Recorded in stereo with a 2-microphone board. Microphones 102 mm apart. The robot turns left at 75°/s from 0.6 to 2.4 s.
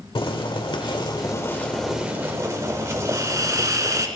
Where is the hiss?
35° right (ahead or behind), 1.0 m.